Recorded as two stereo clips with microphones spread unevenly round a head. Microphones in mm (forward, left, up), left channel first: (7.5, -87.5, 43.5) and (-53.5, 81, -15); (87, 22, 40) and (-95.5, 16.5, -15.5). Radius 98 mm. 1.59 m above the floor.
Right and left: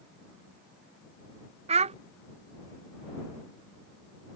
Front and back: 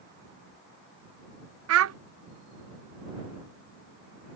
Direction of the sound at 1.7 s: 175° left.